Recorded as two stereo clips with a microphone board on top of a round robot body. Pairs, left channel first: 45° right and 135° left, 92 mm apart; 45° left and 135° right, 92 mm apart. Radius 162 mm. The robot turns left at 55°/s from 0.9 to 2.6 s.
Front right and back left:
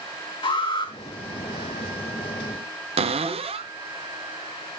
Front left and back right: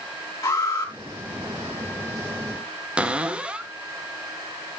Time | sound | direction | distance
0.4 | an alarm | 10° right | 3.5 m
3.0 | a cupboard door | 145° left | 0.6 m